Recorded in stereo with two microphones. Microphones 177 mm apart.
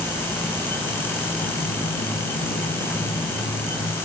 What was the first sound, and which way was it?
Footsteps, 75° left (ahead or behind).